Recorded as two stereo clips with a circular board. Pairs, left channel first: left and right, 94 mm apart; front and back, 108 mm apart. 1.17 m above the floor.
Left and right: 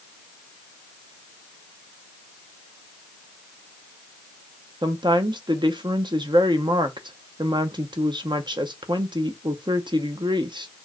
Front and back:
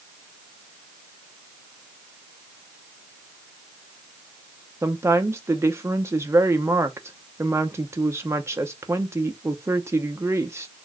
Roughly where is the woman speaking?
Behind right.